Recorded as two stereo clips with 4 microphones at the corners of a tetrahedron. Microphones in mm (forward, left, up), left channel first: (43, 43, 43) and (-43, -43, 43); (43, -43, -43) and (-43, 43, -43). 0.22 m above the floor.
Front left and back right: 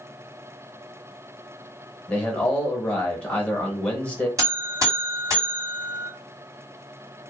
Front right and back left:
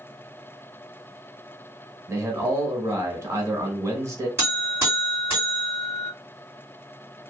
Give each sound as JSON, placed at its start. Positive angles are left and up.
{"t": 2.1, "sound": "a man speaking", "azimuth_deg": 110, "distance_m": 1.0}
{"t": 4.4, "sound": "a buzzer", "azimuth_deg": -170, "distance_m": 1.9}